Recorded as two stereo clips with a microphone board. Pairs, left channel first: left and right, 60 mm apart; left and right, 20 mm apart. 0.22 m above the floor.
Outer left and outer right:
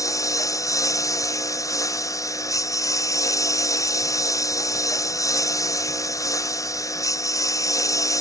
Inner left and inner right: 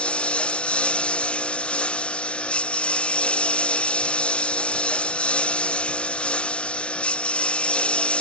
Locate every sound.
0.0 s a lawn mower: 65° left (ahead or behind)